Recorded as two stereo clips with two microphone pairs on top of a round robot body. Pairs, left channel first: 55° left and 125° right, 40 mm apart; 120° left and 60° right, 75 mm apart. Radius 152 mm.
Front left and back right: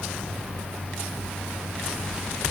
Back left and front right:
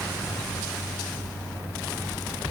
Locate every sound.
Only background noise.